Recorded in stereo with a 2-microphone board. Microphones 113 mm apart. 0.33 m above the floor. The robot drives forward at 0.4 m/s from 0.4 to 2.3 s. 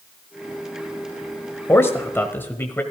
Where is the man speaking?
25° left (ahead or behind), 1.2 m; by 2.8 s 20° left (ahead or behind), 1.3 m.